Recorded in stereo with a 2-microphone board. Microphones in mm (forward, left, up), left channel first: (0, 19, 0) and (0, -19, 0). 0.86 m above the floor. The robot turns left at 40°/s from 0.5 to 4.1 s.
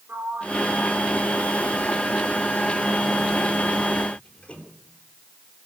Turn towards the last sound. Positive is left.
turn(degrees=30)  # may be behind; listen again after turning